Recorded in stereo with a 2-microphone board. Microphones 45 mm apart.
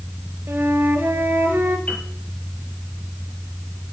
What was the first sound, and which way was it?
A flute, 50° right (ahead or behind).